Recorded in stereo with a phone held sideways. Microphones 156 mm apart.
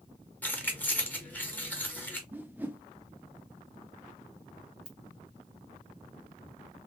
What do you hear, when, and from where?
0.4 s keys jangling: 10° left (ahead or behind), 1.2 m
2.3 s a whoosh: 10° right (ahead or behind), 0.6 m
4.8 s a ringtone: 65° left (ahead or behind), 2.0 m